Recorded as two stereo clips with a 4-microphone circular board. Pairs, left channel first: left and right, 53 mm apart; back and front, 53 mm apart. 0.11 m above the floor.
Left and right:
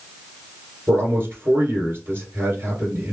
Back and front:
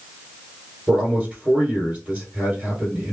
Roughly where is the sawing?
No sawing in this recording.